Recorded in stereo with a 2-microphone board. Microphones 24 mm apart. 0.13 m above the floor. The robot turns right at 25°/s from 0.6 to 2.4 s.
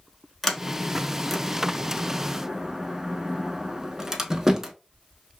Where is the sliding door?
5° left (ahead or behind), 0.5 m; by 4.7 s 25° right (ahead or behind), 0.5 m.